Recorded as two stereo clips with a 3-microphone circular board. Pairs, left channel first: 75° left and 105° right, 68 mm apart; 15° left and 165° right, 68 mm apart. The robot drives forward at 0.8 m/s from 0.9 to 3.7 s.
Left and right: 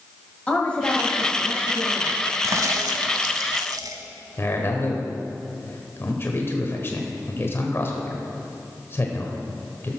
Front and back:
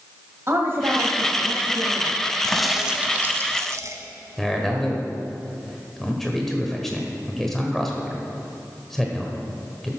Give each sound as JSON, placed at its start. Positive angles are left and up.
{"t": 0.5, "sound": "a woman speaking", "azimuth_deg": 145, "distance_m": 1.7}
{"t": 2.4, "sound": "a crack", "azimuth_deg": -65, "distance_m": 1.0}
{"t": 4.4, "sound": "a man speaking", "azimuth_deg": 100, "distance_m": 1.4}